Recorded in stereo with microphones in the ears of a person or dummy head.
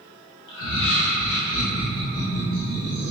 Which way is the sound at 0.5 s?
80° left.